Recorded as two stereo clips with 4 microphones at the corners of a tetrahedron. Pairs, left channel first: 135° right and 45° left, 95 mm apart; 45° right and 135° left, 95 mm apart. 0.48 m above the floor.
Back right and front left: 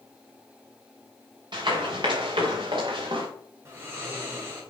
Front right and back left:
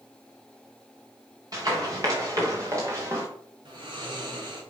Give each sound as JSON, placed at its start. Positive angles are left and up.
{"t": 1.5, "sound": "running footsteps", "azimuth_deg": 85, "distance_m": 4.0}
{"t": 3.6, "sound": "snoring", "azimuth_deg": 105, "distance_m": 2.5}